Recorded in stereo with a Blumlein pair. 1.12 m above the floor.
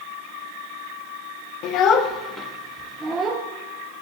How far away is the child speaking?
About 1.0 m.